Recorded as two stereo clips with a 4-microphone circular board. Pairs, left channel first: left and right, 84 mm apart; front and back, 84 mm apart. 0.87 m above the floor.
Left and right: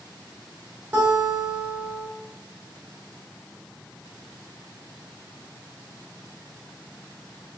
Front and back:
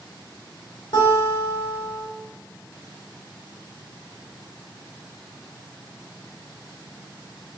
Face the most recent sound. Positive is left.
turn(degrees=-25)